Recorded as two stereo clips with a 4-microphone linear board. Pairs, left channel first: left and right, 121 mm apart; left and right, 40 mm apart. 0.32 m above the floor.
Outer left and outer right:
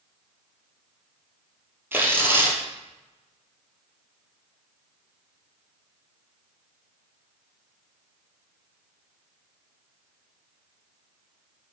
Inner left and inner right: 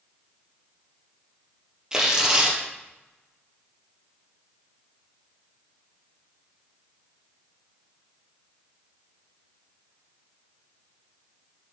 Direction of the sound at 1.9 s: 20° right (ahead or behind).